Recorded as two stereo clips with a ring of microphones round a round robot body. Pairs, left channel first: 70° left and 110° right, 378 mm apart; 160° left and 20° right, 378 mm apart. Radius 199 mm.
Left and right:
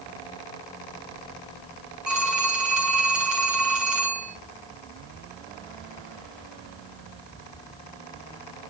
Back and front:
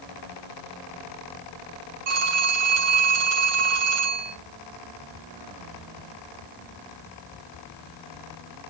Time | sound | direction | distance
2.1 | a phone ringing | 25° right | 5.5 m